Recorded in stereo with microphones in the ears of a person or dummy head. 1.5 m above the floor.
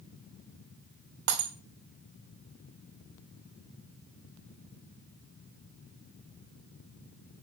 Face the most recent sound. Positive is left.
turn(degrees=-55)  # may be behind; listen again after turning